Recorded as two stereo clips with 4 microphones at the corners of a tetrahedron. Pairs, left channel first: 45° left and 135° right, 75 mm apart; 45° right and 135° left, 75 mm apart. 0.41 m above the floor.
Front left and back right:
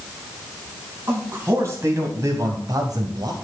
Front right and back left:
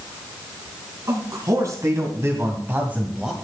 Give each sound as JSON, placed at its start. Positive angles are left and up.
{"t": 1.1, "sound": "a man speaking", "azimuth_deg": 170, "distance_m": 3.5}